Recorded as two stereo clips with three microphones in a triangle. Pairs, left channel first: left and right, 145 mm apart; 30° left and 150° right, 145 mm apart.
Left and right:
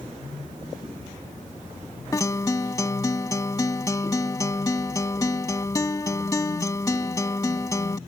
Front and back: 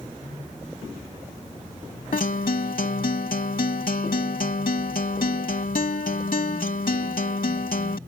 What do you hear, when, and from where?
2.1 s a guitar: 25° left